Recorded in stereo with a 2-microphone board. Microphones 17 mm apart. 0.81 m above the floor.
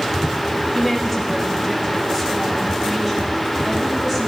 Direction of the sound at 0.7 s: Centre (ahead or behind).